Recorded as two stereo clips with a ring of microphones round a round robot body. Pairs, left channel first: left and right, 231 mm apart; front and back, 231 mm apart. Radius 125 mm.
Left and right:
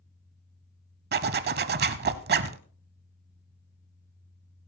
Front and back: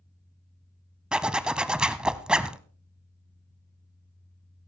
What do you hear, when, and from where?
1.1 s a zipper: 95° right, 0.8 m